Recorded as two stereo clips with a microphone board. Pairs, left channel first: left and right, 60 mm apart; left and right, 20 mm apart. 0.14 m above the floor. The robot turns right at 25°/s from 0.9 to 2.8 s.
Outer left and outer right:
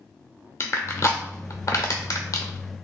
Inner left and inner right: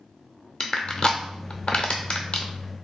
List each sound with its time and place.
0.6 s crushing: 50° left (ahead or behind), 0.7 m; by 2.5 s 80° left, 0.7 m